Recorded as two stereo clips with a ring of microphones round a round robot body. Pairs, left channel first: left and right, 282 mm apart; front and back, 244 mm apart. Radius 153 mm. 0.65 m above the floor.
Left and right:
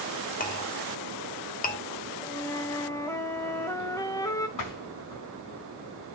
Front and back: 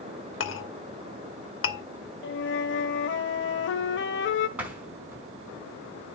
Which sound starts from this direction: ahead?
A flute, at 2.2 s.